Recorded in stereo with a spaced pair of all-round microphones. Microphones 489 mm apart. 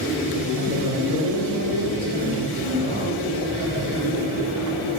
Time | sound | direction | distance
0.6 | a man speaking | 75° left (ahead or behind) | 2.5 m